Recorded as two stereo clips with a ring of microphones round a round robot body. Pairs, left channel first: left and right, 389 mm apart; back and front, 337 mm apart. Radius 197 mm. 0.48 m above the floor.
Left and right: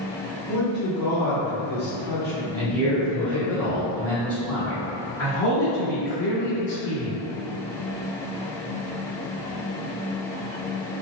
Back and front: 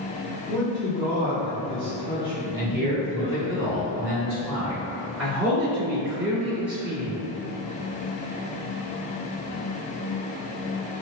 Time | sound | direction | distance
0.5 | a man speaking | 120° right | 0.8 m
2.5 | a man speaking | 5° left | 1.2 m
5.2 | a man speaking | 85° left | 1.9 m